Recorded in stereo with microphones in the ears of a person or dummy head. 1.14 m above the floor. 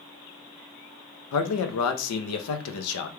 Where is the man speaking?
80° left, 0.7 m.